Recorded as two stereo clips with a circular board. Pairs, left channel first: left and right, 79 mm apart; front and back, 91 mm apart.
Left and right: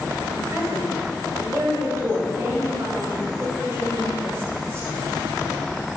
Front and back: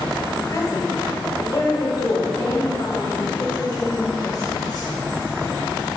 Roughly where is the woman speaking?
Ahead right.